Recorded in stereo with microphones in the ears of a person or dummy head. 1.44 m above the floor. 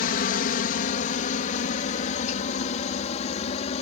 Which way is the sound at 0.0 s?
45° left (ahead or behind).